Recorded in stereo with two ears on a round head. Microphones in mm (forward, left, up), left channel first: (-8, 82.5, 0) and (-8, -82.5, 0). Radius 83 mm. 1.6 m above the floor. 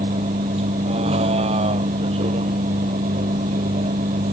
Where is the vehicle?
35° right (ahead or behind).